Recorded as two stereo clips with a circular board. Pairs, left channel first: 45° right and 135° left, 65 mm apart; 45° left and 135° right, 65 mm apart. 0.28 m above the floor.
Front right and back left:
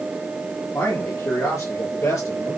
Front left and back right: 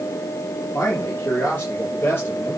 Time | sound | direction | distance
0.7 | a man speaking | straight ahead | 5 m